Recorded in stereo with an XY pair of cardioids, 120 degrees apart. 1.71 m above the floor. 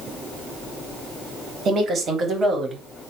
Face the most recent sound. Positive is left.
turn(degrees=-35)